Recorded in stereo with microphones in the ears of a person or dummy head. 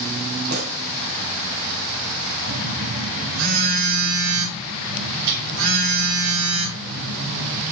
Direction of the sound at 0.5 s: 55° right (ahead or behind).